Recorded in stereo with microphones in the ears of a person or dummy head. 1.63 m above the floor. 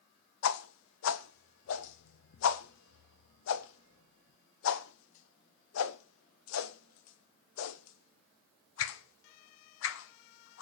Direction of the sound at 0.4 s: 80° left.